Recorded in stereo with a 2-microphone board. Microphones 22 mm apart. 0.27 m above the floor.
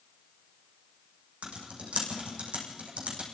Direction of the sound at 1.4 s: 80° right.